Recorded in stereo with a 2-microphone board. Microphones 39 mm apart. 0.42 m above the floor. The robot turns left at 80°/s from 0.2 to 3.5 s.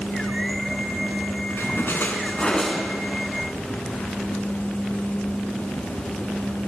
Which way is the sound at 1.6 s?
100° left.